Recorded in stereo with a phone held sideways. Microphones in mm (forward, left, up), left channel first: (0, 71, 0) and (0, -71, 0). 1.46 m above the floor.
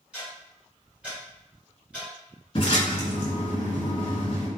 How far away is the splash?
About 1.6 m.